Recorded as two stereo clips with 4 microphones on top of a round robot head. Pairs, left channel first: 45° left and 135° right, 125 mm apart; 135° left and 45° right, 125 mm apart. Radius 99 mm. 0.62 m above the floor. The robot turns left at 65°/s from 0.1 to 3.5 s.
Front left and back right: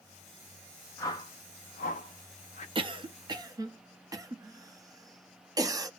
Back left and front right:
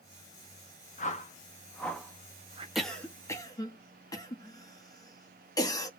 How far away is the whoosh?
About 0.7 m.